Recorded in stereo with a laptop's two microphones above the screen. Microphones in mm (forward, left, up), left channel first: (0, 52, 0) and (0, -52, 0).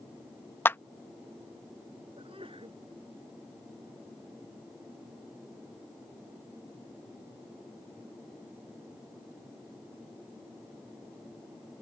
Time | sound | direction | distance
0.7 | a clap | 20° left (ahead or behind) | ?
2.2 | a sneeze | 60° right (ahead or behind) | ?